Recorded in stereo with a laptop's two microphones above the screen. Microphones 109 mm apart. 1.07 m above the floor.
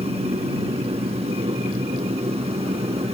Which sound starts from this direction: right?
A machine running, at 0.0 s.